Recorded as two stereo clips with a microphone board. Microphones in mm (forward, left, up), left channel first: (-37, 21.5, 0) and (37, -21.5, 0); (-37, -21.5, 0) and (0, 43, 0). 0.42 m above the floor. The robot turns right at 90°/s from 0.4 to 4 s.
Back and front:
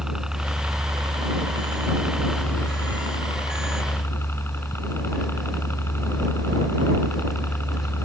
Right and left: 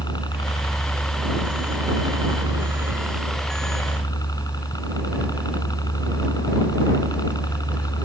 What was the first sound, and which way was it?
A helicopter, 110° right.